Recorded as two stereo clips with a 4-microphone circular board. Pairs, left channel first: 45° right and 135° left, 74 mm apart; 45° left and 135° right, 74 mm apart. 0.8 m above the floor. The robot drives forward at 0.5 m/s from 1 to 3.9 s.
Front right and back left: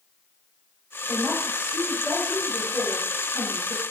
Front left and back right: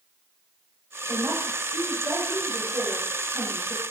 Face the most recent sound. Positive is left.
turn(degrees=-120)